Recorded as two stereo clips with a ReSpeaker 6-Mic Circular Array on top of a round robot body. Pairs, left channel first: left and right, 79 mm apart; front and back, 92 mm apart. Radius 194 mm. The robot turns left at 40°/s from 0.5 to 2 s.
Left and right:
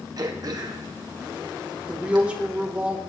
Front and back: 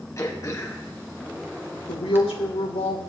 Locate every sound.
0.2 s throat clearing: 55° right, 1.6 m; by 2.2 s 115° right, 1.6 m
1.9 s a woman speaking: 10° right, 3 m; by 3.0 s 15° right, 3 m